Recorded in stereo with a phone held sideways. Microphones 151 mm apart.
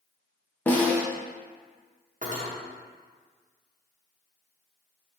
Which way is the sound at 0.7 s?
10° left (ahead or behind).